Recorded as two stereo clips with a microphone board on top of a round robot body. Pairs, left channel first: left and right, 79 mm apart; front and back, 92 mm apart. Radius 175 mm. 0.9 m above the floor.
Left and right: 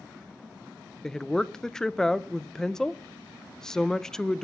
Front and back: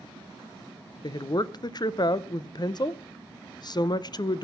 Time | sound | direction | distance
1.0 | a woman speaking | 10° left | 0.8 m